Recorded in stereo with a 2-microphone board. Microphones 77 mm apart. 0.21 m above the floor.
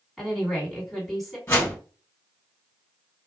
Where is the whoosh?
30° left (ahead or behind), 1.5 m.